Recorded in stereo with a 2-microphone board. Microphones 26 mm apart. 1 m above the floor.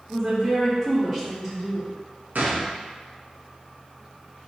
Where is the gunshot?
85° right, 0.6 m.